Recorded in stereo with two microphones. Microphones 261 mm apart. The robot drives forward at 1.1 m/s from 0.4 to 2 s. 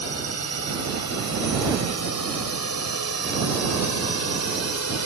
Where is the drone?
75° left (ahead or behind).